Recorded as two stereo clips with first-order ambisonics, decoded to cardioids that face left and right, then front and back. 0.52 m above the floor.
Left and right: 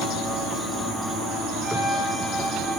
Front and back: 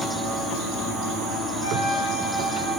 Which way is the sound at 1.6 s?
15° right.